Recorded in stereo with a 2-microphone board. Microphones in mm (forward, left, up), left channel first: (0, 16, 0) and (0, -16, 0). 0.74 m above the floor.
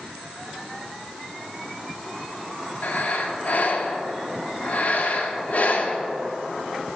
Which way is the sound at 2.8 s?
55° left (ahead or behind).